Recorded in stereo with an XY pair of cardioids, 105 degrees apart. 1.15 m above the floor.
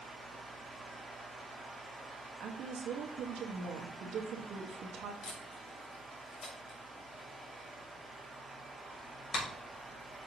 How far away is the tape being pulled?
About 3 m.